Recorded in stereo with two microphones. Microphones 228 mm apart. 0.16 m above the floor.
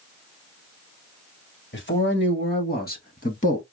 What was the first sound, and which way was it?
A man speaking, 55° left (ahead or behind).